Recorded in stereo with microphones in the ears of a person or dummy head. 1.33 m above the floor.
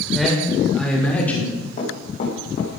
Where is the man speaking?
5° right (ahead or behind), 5.5 m; by 1.6 s 10° left (ahead or behind), 4 m.